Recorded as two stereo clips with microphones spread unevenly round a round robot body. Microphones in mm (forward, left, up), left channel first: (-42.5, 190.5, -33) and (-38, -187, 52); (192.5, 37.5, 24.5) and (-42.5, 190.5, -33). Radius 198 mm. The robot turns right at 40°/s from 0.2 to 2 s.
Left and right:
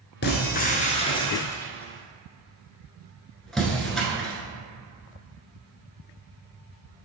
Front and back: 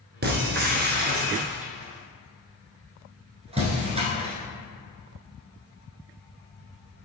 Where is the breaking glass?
140° left, 0.9 m; by 4.3 s 145° right, 0.9 m.